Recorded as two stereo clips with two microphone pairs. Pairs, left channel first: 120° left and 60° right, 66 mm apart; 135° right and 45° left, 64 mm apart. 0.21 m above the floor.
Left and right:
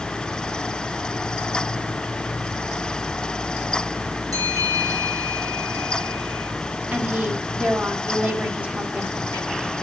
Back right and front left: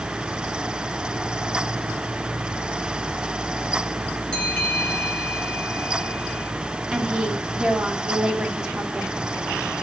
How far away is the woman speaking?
About 1.6 m.